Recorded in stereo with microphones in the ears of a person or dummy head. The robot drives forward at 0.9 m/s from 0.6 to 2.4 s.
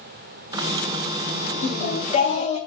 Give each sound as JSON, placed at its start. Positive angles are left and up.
{"t": 1.6, "sound": "singing", "side_deg": 50, "distance_m": 3.0}